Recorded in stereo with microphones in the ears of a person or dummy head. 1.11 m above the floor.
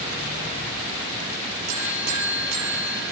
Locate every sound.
1.7 s a buzzer: 50° right (ahead or behind), 7 m